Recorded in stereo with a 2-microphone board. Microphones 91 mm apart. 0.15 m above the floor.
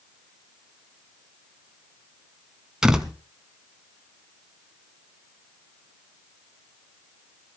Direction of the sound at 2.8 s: 5° right (ahead or behind).